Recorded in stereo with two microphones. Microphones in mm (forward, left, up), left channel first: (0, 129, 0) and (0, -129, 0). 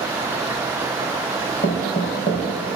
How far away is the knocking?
About 4 m.